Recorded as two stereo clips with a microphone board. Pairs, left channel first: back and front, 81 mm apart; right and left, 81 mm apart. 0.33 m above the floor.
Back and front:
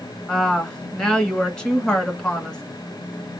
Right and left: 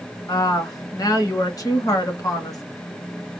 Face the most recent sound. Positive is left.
turn(degrees=-105)